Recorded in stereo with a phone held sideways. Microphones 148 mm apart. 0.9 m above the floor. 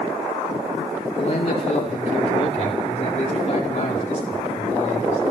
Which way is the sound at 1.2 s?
45° left (ahead or behind).